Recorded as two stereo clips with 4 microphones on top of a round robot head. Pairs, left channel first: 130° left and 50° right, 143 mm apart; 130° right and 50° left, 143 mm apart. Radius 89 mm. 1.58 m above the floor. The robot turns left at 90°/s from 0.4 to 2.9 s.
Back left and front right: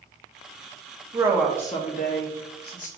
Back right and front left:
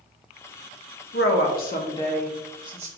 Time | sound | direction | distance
1.1 | a woman speaking | 115° right | 0.8 m